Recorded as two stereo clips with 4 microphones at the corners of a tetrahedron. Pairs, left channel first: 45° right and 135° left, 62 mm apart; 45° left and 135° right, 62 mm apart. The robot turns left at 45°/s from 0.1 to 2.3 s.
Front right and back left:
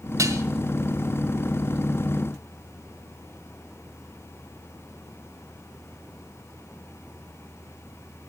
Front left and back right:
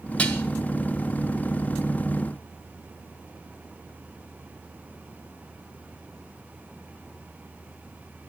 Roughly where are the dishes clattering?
Behind left.